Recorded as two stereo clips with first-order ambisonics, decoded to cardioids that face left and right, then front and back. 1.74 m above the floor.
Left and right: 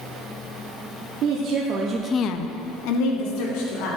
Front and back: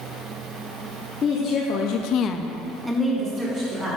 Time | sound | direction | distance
1.2 | a woman speaking | 60° right | 1.4 m